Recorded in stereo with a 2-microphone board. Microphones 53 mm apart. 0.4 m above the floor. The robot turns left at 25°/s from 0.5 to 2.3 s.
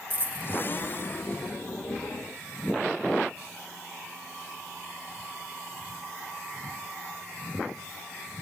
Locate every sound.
0.1 s a dropped coin: 35° right (ahead or behind), 0.5 m